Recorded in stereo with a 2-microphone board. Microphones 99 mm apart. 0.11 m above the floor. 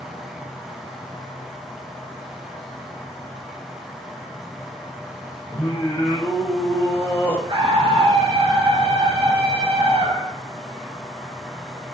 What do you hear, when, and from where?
0.0 s an insect: 5° left (ahead or behind), 7.5 m
5.5 s singing: 15° left (ahead or behind), 4.5 m
7.5 s a scream: 50° right (ahead or behind), 8.5 m